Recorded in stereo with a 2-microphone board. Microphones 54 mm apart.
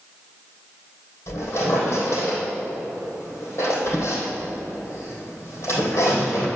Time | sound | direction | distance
1.3 | a squeak | 50° left (ahead or behind) | 3 m